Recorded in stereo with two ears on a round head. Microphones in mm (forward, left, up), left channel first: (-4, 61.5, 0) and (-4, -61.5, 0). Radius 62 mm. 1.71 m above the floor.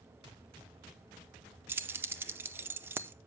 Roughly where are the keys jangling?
Centre.